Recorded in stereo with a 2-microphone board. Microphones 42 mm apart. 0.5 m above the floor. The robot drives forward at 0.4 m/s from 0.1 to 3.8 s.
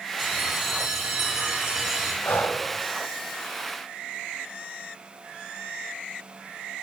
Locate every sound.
0.2 s a bell: 10° right (ahead or behind), 2 m; by 2.1 s 15° right (ahead or behind), 1.5 m
2.2 s breathing: 65° left (ahead or behind), 0.5 m; by 2.6 s 55° left (ahead or behind), 0.6 m